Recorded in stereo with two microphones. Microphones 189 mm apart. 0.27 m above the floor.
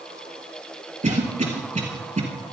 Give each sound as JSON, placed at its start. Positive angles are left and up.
{"t": 1.0, "sound": "a cough", "side_deg": -40, "distance_m": 4.5}